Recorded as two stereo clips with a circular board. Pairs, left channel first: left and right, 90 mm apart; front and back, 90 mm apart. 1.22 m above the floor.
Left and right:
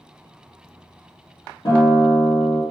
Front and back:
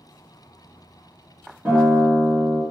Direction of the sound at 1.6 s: 110° left.